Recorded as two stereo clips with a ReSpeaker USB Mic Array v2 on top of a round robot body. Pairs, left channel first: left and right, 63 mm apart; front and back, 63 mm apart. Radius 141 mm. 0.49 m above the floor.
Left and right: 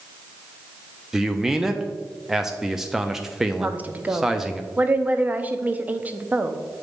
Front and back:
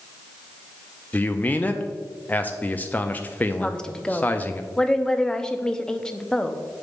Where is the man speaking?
15° right, 0.7 m.